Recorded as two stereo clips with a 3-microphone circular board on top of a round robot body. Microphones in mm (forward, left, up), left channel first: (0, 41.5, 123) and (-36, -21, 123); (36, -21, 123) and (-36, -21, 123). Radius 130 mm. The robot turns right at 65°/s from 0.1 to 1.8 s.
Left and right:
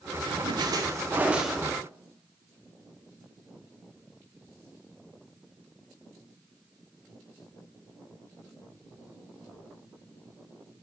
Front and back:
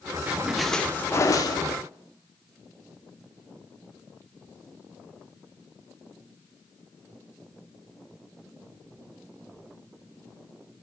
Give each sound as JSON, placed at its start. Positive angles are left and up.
{"t": 0.3, "sound": "a splash", "azimuth_deg": -115, "distance_m": 0.6}